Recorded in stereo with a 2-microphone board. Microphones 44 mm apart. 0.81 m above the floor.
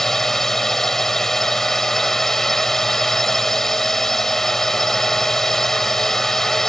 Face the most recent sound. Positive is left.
turn(degrees=10)  # may be behind; listen again after turning